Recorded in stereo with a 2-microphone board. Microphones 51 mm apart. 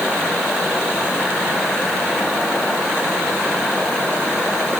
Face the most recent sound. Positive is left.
No sound to turn to.